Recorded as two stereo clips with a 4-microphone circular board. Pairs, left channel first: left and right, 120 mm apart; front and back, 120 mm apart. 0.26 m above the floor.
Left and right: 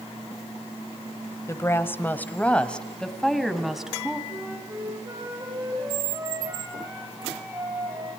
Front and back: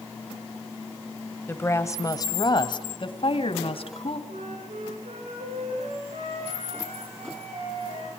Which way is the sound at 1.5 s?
55° left.